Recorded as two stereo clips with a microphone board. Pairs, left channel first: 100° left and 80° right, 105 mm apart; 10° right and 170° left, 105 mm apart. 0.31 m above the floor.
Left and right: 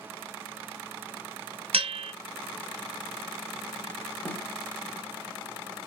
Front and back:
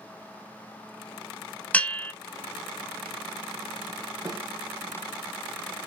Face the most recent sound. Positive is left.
turn(degrees=150)